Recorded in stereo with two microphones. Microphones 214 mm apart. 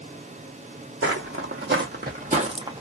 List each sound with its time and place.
1.0 s footsteps: 70° right (ahead or behind), 1.1 m; by 2.8 s 15° right (ahead or behind), 0.7 m